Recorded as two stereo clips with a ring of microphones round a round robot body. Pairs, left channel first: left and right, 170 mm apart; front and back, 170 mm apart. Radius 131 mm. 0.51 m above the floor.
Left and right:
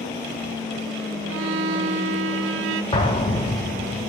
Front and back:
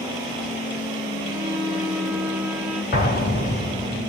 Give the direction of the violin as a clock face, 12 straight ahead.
3 o'clock.